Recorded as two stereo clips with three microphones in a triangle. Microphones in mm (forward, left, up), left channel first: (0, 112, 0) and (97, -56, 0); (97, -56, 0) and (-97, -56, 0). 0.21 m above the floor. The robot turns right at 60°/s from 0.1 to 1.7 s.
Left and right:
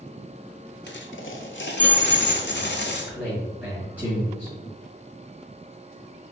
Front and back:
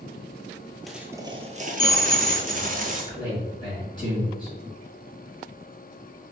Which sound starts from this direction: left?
A dropped coin, at 0.9 s.